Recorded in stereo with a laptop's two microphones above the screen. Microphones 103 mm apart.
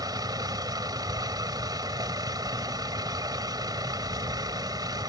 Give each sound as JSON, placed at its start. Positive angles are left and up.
{"t": 0.0, "sound": "a vehicle", "side_deg": -40}